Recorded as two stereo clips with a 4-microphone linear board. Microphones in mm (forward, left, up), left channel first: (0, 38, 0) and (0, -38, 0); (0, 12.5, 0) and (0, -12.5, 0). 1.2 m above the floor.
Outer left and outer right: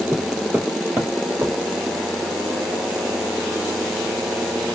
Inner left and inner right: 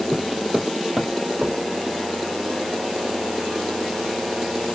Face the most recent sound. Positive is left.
turn(degrees=-25)  # may be behind; listen again after turning